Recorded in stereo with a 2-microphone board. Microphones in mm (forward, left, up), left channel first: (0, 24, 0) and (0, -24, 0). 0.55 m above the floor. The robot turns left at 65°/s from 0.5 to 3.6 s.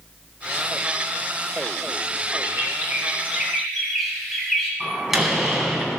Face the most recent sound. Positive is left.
turn(degrees=-5)  # may be behind; listen again after turning